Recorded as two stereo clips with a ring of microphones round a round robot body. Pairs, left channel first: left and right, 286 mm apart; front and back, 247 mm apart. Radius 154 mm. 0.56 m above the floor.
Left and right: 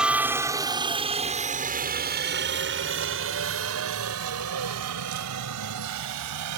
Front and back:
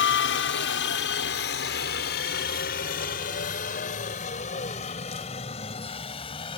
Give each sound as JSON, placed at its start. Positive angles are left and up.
{"t": 0.0, "sound": "a helicopter", "azimuth_deg": -5}